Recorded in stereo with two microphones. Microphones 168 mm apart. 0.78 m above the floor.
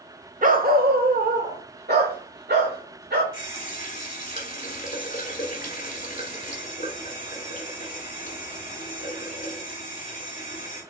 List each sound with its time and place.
0.4 s a dog barking: 55° right (ahead or behind), 0.6 m; by 3.2 s 80° right, 2 m
3.3 s a running tap: 50° left (ahead or behind), 1.6 m